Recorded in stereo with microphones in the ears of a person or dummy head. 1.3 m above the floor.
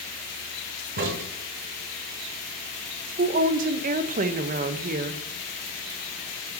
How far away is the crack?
About 1.2 m.